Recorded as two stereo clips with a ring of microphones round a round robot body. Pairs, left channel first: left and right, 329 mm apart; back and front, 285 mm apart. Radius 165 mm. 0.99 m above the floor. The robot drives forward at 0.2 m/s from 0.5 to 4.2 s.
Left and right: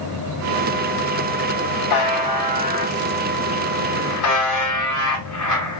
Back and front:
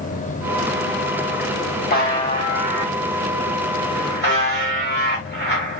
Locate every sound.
1.9 s a buzzer: 120° left, 1.9 m; by 5.8 s 135° left, 2 m